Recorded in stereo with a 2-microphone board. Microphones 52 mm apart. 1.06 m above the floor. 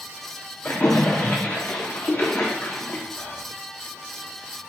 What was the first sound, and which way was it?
A splash, 40° left (ahead or behind).